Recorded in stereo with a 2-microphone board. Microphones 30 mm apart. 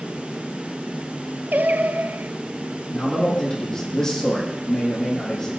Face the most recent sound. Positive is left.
turn(degrees=20)  # may be behind; listen again after turning